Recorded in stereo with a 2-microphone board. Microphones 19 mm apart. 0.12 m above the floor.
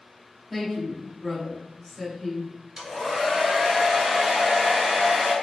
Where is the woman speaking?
10° left (ahead or behind), 1.9 m.